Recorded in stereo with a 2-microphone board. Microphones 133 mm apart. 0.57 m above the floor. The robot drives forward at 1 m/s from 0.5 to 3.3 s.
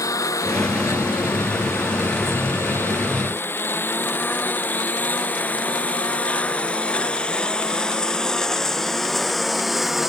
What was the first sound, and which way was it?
A lawn mower, 25° left (ahead or behind).